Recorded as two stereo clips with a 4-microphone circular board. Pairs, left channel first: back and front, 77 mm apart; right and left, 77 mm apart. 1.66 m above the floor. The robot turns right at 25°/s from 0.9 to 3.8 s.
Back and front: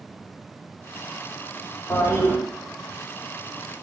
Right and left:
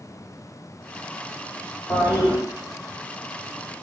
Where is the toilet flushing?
130° right, 1.1 m; by 2.4 s 120° right, 1.1 m.